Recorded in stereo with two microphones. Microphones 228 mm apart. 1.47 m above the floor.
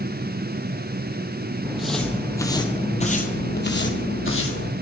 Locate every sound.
1.6 s footsteps: 5° right (ahead or behind), 3.5 m; by 4.7 s 65° left (ahead or behind), 3.5 m